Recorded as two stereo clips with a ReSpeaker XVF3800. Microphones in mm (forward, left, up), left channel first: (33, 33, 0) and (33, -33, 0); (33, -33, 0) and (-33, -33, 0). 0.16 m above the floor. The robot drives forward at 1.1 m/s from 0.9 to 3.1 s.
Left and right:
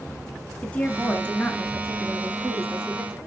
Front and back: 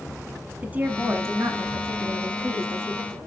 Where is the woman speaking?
140° left, 1.1 m; by 3.2 s 175° left, 3 m.